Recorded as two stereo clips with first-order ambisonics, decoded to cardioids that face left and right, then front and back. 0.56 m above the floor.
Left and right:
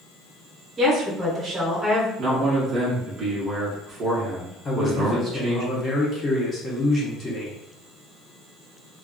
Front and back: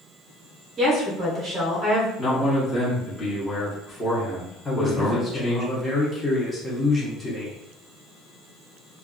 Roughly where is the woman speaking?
Behind right.